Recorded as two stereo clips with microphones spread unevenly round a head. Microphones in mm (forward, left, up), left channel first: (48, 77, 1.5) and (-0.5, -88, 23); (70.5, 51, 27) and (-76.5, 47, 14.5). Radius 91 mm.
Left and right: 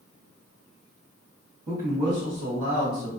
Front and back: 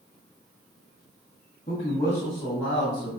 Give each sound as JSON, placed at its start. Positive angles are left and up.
{"t": 1.7, "sound": "a man speaking", "azimuth_deg": -55, "distance_m": 1.1}